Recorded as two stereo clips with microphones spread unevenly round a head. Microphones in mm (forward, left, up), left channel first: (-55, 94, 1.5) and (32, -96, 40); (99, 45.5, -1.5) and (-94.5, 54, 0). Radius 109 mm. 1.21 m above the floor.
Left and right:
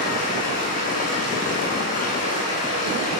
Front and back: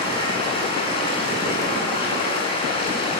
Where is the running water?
60° left, 9 m.